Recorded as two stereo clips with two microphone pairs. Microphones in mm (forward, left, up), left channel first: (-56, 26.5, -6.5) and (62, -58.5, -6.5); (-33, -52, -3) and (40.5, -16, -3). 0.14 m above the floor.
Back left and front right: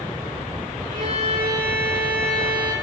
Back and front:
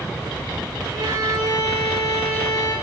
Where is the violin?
15° right, 10 m.